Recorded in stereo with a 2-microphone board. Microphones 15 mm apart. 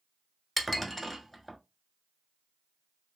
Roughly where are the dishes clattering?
Centre.